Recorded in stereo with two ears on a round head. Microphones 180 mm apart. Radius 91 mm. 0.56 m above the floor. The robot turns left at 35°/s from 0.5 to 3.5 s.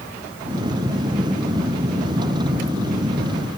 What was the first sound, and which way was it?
Only background noise.